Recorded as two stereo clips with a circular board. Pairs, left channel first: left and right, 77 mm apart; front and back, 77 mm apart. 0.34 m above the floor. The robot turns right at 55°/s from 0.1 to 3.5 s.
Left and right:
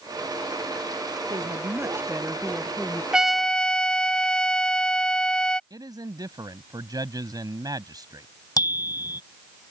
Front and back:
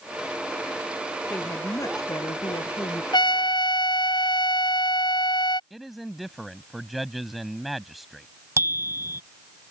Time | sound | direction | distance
1.3 | a woman speaking | 70° right | ?
3.1 | a trumpet | 10° right | ?
5.7 | a man speaking | 90° right | ?
8.6 | a bicycle bell | 125° left | ?